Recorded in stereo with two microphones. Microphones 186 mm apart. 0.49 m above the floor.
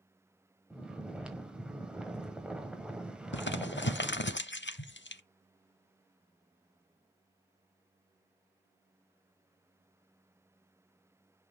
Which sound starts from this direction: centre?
Snoring, at 0.7 s.